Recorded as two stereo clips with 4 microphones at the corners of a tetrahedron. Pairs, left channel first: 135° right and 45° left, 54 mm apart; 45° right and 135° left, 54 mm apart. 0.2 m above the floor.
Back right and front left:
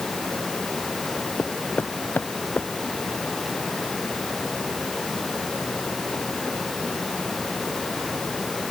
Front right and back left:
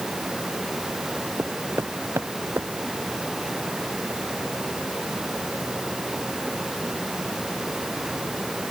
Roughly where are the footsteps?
Behind.